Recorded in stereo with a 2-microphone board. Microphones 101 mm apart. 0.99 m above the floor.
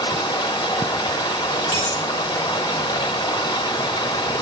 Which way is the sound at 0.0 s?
45° left (ahead or behind).